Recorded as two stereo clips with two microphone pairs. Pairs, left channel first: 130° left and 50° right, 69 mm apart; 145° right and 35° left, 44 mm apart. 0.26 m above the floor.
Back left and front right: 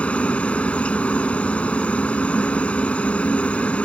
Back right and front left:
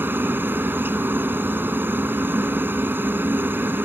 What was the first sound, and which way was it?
A helicopter, 60° left.